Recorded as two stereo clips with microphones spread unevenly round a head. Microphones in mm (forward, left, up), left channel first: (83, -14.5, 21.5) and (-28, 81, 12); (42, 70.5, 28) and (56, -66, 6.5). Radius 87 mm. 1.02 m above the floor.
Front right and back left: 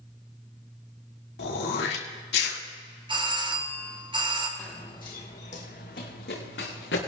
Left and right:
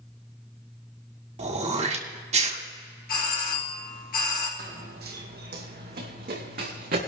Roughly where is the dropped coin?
I don't hear a dropped coin.